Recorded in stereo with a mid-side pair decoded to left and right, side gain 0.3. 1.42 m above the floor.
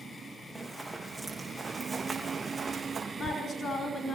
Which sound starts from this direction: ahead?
Running footsteps, at 0.6 s.